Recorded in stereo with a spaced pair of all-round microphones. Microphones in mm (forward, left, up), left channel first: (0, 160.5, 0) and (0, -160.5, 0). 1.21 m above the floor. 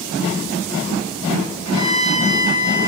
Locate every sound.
1.6 s a violin: 60° left (ahead or behind), 3 m